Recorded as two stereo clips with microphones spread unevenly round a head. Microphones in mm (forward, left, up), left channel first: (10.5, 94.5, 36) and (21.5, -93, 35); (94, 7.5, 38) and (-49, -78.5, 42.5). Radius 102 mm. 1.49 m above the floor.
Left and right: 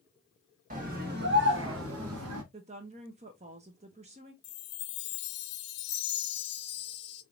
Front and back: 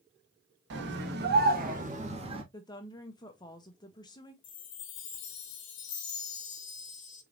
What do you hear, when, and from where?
0.7 s a scream: 140° right, 1.6 m; by 2.4 s 90° right, 1.5 m
2.5 s a woman speaking: 35° right, 0.6 m
4.4 s a chime: 65° left, 0.6 m